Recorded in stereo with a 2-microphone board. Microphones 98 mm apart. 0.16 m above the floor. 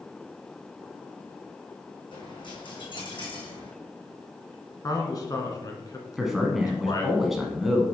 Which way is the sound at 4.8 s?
40° left (ahead or behind).